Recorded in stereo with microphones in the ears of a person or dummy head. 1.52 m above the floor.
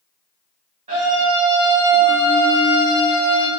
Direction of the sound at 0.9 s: 45° right (ahead or behind).